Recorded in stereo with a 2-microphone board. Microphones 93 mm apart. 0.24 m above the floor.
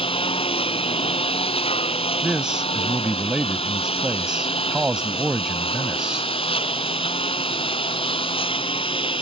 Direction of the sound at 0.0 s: 75° left (ahead or behind).